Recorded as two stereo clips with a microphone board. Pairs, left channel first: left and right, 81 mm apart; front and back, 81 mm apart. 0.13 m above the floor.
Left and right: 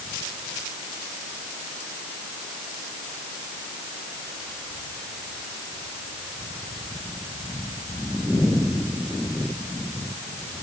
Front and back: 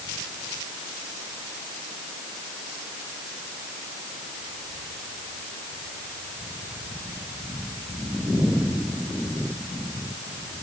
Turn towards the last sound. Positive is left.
No sound to turn to.